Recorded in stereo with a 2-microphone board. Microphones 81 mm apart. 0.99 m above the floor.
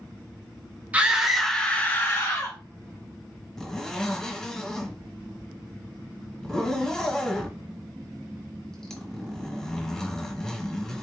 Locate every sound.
0.9 s a scream: 20° right (ahead or behind), 1.1 m; by 2.6 s 45° left (ahead or behind), 1.4 m
3.6 s a zipper: 10° left (ahead or behind), 1.2 m